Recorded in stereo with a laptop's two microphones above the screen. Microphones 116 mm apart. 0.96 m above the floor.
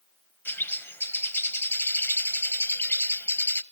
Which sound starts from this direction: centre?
A bird, at 0.5 s.